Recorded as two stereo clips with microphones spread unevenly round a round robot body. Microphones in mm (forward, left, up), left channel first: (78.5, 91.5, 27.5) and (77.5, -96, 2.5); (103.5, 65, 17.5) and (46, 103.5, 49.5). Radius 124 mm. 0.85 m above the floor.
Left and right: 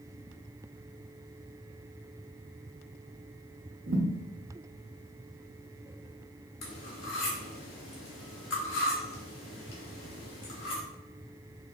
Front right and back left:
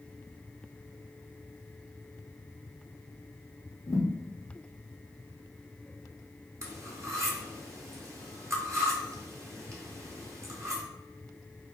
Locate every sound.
3.9 s a thud: 95° right, 0.9 m
6.6 s cutlery clinking: 105° left, 0.9 m